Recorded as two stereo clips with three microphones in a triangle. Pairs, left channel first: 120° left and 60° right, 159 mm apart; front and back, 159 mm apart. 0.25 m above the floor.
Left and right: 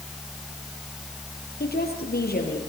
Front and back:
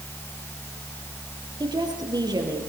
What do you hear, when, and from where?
1.6 s a woman speaking: 115° left, 6.5 m